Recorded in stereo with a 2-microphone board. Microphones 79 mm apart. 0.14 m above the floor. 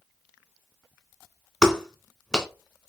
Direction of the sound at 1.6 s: 10° left (ahead or behind).